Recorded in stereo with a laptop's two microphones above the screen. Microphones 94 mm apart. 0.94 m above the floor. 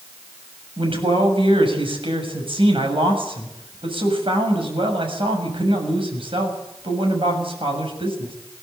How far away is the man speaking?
About 7 m.